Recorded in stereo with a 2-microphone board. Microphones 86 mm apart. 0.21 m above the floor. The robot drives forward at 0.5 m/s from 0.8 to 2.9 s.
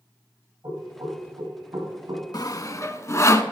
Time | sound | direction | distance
0.6 | knocking | 45° right (ahead or behind) | 6.5 m
2.3 | sawing | 50° left (ahead or behind) | 0.5 m